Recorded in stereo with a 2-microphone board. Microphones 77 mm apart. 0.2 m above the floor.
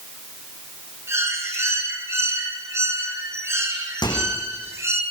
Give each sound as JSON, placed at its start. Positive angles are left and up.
{"t": 1.1, "sound": "a bird", "side_deg": -35, "distance_m": 4.5}
{"t": 4.0, "sound": "a microwave", "side_deg": 70, "distance_m": 9.0}